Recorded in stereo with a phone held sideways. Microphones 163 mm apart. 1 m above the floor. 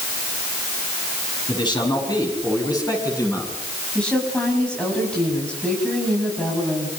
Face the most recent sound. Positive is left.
turn(degrees=5)  # may be behind; listen again after turning